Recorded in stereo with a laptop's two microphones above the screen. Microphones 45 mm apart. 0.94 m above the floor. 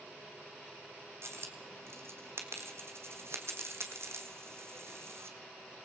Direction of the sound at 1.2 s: 65° right (ahead or behind).